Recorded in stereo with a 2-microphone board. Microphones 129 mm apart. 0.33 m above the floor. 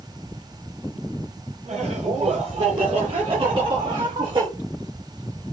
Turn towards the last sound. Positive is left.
turn(degrees=-35)  # may be behind; listen again after turning